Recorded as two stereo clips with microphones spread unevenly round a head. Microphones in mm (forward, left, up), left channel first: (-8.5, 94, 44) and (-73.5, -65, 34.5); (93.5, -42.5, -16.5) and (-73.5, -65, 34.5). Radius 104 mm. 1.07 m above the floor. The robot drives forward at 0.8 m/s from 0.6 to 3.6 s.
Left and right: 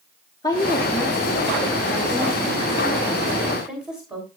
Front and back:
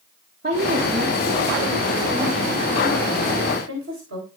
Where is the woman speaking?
135° left, 1.5 m; by 4.3 s 165° left, 3.5 m.